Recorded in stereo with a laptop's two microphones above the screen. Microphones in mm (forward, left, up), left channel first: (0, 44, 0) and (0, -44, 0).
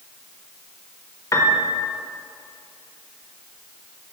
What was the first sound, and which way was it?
A piano, 40° left (ahead or behind).